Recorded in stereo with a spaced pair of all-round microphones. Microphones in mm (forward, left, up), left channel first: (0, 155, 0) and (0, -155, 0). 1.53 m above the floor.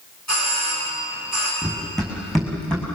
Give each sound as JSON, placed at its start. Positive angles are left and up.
{"t": 0.3, "sound": "a doorbell", "side_deg": 60, "distance_m": 9.5}
{"t": 1.6, "sound": "running footsteps", "side_deg": 0, "distance_m": 5.5}